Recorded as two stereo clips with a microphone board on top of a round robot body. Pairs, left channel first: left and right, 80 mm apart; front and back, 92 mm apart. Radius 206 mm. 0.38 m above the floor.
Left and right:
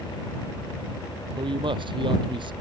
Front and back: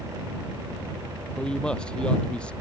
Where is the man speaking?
80° right.